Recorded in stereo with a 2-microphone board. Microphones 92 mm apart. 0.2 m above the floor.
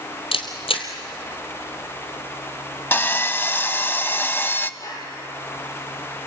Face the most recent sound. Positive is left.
turn(degrees=40)  # may be behind; listen again after turning